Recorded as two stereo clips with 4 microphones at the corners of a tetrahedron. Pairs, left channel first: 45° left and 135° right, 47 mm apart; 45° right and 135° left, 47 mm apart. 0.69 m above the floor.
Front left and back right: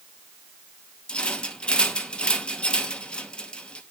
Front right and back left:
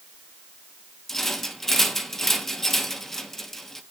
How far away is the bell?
I don't hear a bell.